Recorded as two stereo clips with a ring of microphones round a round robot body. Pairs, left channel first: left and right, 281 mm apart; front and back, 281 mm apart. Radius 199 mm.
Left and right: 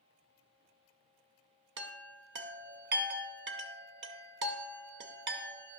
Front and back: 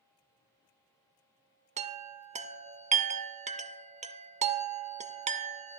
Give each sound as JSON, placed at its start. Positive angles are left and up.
{"t": 1.8, "sound": "a chime", "azimuth_deg": -120, "distance_m": 0.7}